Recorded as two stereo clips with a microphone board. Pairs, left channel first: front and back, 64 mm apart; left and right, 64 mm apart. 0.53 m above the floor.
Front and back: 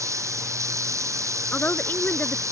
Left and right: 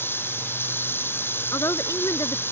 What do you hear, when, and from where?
0.0 s running water: 140° left
1.5 s a woman speaking: 60° left